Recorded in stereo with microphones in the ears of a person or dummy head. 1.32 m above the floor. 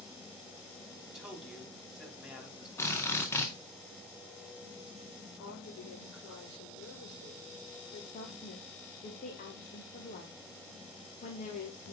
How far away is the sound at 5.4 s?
About 3 m.